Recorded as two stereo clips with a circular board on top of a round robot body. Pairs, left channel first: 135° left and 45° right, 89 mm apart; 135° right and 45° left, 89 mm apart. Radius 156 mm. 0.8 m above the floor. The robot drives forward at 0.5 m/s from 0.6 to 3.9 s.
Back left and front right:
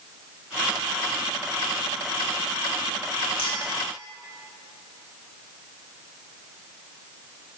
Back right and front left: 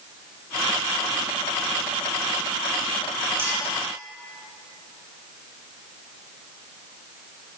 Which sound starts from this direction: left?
A clink, at 3.4 s.